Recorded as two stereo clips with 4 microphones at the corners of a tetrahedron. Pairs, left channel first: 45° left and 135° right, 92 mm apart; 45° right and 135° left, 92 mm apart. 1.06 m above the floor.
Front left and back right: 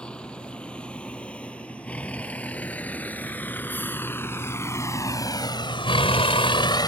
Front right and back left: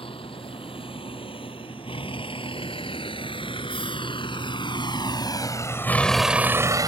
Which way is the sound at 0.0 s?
35° right.